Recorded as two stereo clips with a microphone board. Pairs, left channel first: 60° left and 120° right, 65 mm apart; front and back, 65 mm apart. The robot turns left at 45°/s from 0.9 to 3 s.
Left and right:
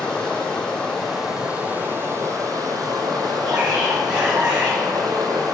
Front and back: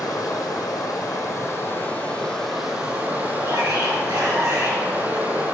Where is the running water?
20° right, 1.7 m; by 5.5 s 115° right, 1.7 m.